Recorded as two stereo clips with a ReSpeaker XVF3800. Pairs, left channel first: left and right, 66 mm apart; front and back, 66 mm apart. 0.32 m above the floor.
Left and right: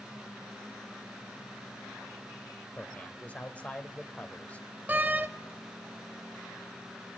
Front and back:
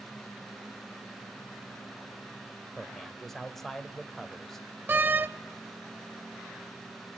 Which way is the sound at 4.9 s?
140° right.